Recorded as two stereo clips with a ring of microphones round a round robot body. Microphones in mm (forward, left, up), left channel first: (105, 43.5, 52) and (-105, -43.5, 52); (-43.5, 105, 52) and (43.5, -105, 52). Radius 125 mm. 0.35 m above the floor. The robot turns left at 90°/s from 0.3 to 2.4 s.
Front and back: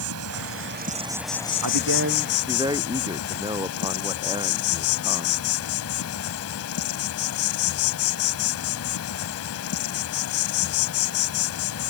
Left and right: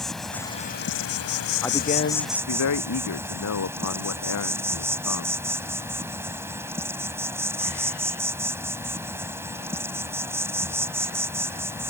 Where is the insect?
160° right; by 11.9 s 10° left.